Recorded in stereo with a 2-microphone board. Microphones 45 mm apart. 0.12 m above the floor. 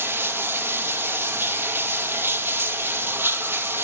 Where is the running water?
60° right (ahead or behind), 1.2 m.